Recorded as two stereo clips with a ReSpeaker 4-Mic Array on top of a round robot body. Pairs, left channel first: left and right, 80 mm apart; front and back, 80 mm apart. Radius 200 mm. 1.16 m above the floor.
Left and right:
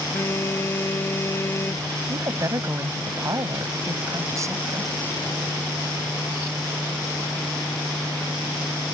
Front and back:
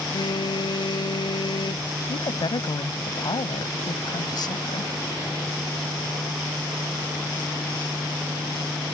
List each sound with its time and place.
0.1 s a phone buzzing: 30° left
2.1 s a woman speaking: 35° right